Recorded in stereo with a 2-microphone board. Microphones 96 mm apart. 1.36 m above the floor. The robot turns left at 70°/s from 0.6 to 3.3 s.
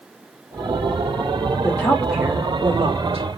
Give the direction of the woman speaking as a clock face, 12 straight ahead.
11 o'clock.